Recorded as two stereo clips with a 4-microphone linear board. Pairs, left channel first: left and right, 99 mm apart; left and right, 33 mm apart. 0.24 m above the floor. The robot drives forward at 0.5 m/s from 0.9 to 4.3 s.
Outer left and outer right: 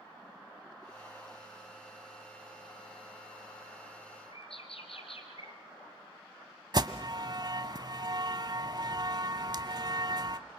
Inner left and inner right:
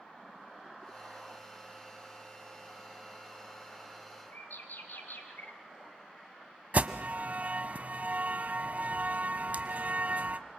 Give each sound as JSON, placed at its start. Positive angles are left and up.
{"t": 4.3, "sound": "a bird", "side_deg": 70, "distance_m": 3.5}
{"t": 6.7, "sound": "an alarm", "side_deg": -45, "distance_m": 1.1}